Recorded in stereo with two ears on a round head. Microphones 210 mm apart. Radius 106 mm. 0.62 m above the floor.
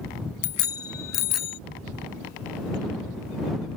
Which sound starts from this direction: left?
A bicycle bell, at 0.4 s.